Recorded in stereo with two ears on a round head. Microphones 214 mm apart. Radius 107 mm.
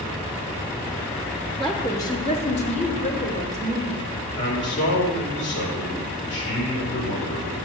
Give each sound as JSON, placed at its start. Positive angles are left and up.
{"t": 1.6, "sound": "a woman speaking", "side_deg": 0, "distance_m": 0.9}
{"t": 4.4, "sound": "a man speaking", "side_deg": 50, "distance_m": 2.5}